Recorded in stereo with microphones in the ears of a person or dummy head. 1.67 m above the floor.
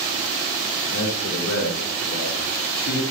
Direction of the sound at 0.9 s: 55° left (ahead or behind).